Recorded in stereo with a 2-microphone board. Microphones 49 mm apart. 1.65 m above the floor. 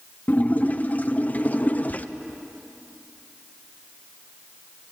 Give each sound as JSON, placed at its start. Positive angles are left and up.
{"t": 0.3, "sound": "a splash", "side_deg": 35, "distance_m": 0.9}